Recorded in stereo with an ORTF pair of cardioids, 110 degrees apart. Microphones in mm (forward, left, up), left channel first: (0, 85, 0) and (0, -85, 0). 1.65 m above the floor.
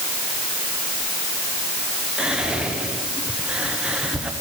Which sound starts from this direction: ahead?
Whispering, at 2.2 s.